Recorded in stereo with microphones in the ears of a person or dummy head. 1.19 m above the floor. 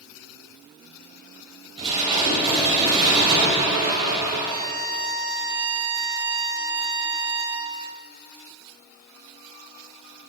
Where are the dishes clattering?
30° right (ahead or behind), 4 m.